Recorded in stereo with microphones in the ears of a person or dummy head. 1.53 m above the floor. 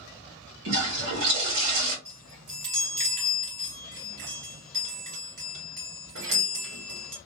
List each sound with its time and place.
0.7 s a toilet flushing: 85° right, 2.0 m
2.0 s a chime: 65° right (ahead or behind), 2 m